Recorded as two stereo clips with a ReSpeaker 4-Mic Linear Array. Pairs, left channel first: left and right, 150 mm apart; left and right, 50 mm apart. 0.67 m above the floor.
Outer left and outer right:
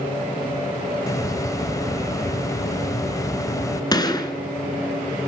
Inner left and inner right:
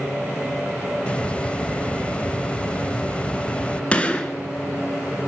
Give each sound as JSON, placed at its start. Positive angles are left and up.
{"t": 1.1, "sound": "a hiss", "side_deg": 20, "distance_m": 0.6}
{"t": 3.9, "sound": "a gunshot", "side_deg": 25, "distance_m": 2.0}